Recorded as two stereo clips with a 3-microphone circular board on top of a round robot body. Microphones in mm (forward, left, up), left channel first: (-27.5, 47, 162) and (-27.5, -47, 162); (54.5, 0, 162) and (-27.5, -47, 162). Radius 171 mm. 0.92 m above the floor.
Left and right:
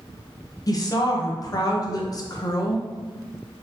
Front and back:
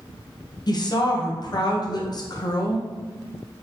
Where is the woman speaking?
55° left, 0.8 m.